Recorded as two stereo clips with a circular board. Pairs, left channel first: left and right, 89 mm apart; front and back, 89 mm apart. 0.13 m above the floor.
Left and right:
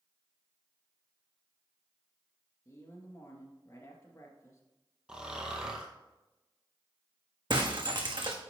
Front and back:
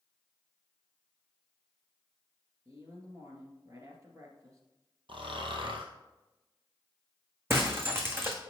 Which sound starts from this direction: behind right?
Breaking glass, at 7.5 s.